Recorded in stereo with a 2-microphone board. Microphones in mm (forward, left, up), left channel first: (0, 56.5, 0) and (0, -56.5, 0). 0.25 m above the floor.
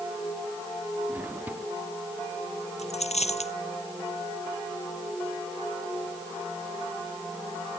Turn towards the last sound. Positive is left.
turn(degrees=80)